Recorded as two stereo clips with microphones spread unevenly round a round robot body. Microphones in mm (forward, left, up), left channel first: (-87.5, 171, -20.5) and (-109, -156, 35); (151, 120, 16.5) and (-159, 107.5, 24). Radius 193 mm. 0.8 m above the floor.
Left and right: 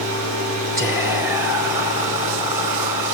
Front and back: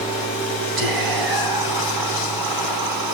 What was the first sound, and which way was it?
Whispering, 175° right.